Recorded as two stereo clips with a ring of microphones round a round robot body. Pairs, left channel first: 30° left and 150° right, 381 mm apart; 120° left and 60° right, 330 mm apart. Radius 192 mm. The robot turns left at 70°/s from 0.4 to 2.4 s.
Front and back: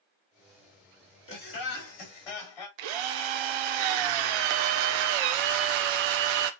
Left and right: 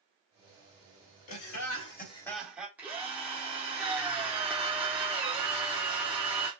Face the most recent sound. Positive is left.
turn(degrees=-145)